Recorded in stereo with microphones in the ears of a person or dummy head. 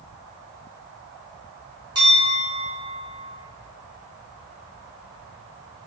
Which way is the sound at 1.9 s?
20° right (ahead or behind).